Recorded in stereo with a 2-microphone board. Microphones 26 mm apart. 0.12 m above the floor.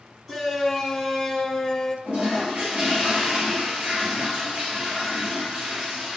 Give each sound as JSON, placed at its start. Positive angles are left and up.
{"t": 0.3, "sound": "a shout", "side_deg": -15, "distance_m": 1.7}
{"t": 2.0, "sound": "a toilet flushing", "side_deg": -55, "distance_m": 3.0}